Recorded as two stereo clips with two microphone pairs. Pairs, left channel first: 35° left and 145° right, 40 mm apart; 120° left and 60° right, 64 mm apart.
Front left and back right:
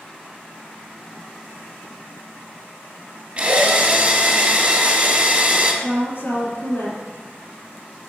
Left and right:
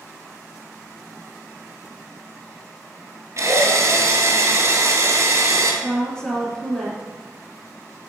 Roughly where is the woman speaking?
Ahead left.